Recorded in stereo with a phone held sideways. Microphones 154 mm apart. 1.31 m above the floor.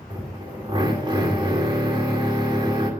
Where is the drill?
30° right (ahead or behind), 3 m.